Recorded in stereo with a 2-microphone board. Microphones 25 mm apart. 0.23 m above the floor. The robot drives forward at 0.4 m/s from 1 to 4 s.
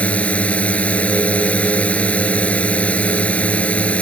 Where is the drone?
70° left (ahead or behind).